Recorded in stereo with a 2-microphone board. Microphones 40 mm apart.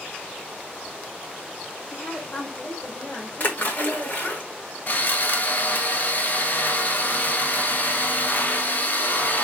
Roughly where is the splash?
Left.